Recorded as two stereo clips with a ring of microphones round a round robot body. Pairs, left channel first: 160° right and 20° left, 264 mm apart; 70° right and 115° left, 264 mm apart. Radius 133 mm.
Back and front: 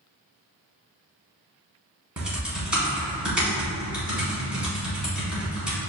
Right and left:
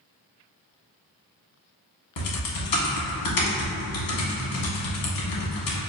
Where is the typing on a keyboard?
65° right, 1.1 m.